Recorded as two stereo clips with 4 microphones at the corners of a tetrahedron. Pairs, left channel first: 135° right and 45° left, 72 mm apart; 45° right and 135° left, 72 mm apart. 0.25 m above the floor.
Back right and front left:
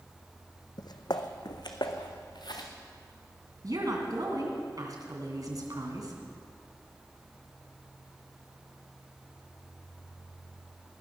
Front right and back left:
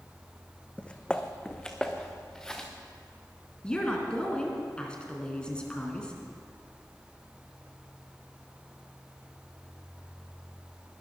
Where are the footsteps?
120° right, 0.9 m; by 2.7 s 130° right, 1.9 m.